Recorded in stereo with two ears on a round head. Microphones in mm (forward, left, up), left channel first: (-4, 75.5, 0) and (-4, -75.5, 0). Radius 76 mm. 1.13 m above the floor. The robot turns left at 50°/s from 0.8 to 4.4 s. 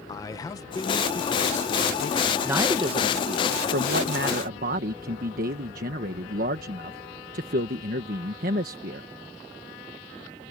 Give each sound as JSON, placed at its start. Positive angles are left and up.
{"t": 0.1, "sound": "a man speaking", "azimuth_deg": 150}
{"t": 2.4, "sound": "a man speaking", "azimuth_deg": -15}